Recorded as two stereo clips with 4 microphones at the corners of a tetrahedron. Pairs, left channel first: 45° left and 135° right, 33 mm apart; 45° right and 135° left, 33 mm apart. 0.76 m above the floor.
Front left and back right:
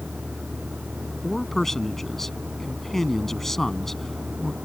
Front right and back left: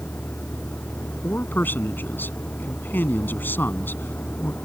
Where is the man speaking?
35° right.